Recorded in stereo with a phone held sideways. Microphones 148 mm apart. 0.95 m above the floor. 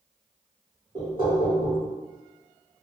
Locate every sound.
0.9 s knocking: 35° right (ahead or behind), 1.1 m